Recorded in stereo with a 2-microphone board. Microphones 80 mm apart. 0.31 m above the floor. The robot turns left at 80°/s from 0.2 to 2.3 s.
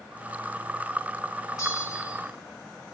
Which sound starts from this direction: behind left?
A bell, at 1.6 s.